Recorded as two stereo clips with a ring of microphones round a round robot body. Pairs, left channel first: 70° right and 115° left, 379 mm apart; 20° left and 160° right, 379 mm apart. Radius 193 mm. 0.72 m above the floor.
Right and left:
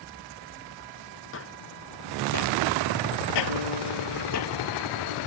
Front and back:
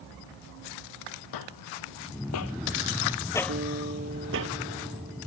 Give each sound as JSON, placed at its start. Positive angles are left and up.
{"t": 1.3, "sound": "footsteps", "azimuth_deg": -10}
{"t": 3.5, "sound": "a guitar", "azimuth_deg": -90}